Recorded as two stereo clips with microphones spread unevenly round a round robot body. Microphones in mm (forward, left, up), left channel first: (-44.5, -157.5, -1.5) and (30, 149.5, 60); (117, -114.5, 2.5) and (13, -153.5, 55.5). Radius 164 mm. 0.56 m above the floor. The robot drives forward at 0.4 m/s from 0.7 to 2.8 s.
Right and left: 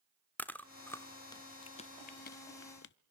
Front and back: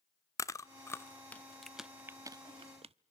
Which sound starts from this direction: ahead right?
Chewing, at 0.4 s.